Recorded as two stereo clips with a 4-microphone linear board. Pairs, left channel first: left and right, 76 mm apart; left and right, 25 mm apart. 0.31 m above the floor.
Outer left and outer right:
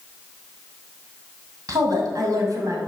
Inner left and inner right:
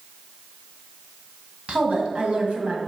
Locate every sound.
1.7 s a woman speaking: 55° right (ahead or behind), 2.5 m; by 2.8 s 45° right (ahead or behind), 2 m